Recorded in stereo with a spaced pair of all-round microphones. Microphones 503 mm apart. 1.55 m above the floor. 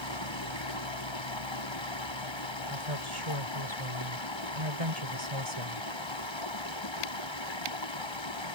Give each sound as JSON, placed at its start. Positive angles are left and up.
{"t": 0.0, "sound": "running water", "side_deg": 60}
{"t": 2.7, "sound": "a woman speaking", "side_deg": -85}